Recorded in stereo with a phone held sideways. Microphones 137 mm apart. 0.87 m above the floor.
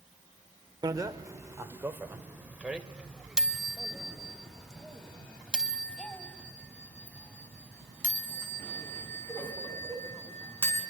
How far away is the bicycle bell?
About 2 m.